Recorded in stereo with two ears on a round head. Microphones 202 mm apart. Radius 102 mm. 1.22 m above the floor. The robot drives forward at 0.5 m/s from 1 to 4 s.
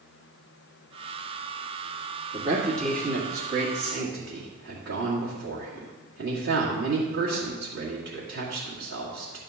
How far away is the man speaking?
About 2.5 m.